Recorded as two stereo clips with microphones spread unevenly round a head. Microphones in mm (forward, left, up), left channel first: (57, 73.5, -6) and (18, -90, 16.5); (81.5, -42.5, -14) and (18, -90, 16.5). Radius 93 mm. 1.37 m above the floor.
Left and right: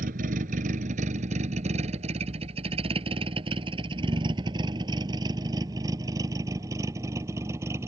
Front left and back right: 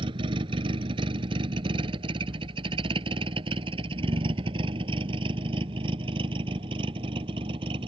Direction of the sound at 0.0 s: 150° right.